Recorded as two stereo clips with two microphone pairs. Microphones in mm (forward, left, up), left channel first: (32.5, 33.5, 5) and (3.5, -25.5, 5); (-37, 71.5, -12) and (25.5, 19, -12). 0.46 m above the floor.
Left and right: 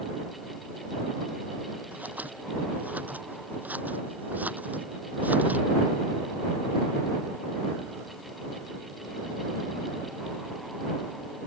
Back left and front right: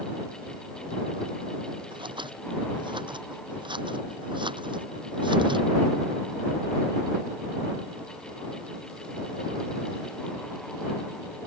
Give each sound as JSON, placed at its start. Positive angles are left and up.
{"t": 1.9, "sound": "scissors", "azimuth_deg": -50}